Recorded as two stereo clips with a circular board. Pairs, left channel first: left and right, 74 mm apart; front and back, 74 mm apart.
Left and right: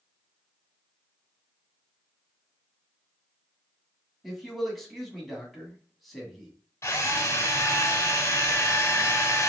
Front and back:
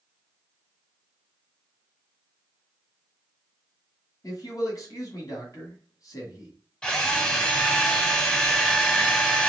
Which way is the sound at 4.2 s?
Straight ahead.